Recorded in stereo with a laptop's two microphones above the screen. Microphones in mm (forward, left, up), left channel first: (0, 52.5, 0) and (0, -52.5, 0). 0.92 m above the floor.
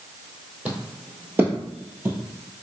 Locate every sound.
0.7 s footsteps: 15° right (ahead or behind), 1.4 m